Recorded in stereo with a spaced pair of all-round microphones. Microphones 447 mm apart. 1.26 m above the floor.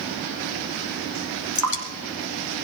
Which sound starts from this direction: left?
Dripping, at 1.6 s.